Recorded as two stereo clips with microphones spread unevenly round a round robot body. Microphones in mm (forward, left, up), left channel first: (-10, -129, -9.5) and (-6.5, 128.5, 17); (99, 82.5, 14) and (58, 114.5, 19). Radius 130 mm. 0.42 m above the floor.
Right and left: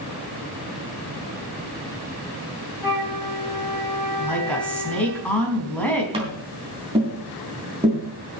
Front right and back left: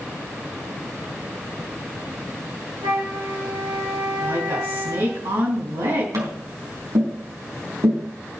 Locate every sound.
2.8 s a flute: 170° left, 8 m
4.2 s a woman speaking: 175° right, 4 m
6.1 s tapping: 160° left, 3.5 m